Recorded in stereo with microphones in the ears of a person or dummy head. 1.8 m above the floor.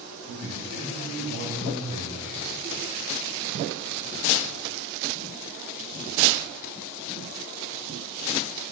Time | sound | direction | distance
0.2 | a man speaking | 60° right (ahead or behind) | 10 m